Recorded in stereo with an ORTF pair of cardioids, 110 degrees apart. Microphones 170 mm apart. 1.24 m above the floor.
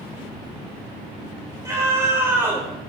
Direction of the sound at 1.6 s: 15° right.